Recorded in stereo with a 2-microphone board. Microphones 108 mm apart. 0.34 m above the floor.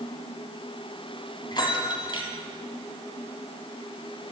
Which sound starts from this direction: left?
A bell, at 1.5 s.